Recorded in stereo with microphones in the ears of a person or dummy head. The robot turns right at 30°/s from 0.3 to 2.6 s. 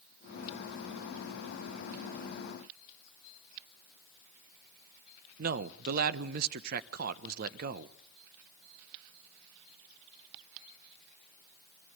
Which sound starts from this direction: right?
A man speaking, at 5.4 s.